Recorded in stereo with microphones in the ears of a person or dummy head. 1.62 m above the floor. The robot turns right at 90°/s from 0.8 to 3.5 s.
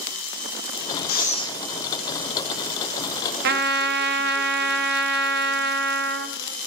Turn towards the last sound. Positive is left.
turn(degrees=-60)  # may be behind; listen again after turning